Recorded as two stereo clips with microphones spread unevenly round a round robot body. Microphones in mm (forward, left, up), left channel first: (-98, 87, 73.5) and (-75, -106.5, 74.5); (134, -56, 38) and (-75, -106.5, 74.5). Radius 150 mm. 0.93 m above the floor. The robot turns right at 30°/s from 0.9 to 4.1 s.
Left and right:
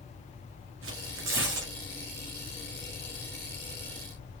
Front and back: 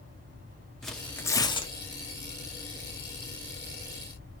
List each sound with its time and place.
0.8 s tearing paper: 75° right, 1.9 m; by 1.7 s 50° right, 1.9 m